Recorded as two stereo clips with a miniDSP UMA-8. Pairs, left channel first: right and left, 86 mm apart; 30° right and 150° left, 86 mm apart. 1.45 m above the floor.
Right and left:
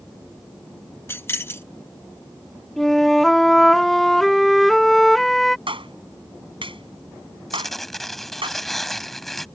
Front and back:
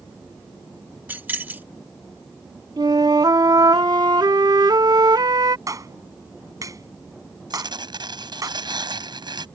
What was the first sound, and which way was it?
Keys jangling, 145° right.